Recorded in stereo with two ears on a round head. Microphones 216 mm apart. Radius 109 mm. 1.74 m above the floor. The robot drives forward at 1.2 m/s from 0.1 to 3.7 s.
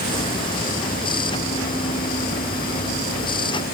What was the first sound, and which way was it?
Only background noise.